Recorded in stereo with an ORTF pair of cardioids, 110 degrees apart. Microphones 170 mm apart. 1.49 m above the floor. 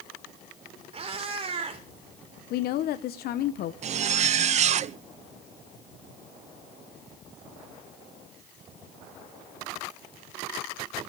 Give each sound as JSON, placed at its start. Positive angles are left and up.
{"t": 0.9, "sound": "a cat meowing", "azimuth_deg": -35, "distance_m": 3.0}
{"t": 2.5, "sound": "a woman speaking", "azimuth_deg": 65, "distance_m": 0.9}
{"t": 3.8, "sound": "a zipper", "azimuth_deg": -40, "distance_m": 0.6}